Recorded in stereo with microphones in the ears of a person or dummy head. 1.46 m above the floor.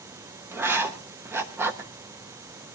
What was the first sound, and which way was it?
Writing, 10° right (ahead or behind).